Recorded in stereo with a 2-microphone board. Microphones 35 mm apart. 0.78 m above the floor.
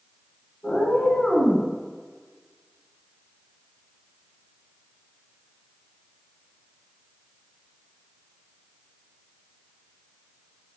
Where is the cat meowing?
40° left (ahead or behind), 0.9 m.